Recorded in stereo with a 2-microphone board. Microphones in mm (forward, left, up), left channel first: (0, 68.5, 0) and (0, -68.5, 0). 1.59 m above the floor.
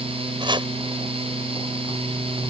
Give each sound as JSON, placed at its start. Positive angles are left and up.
{"t": 0.4, "sound": "chopping", "side_deg": -35}